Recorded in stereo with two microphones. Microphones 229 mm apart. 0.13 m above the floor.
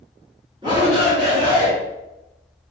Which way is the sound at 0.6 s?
20° right (ahead or behind).